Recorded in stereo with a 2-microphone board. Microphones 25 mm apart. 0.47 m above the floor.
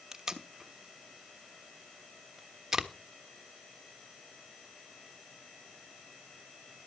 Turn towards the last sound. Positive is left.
turn(degrees=-15)  # may be behind; listen again after turning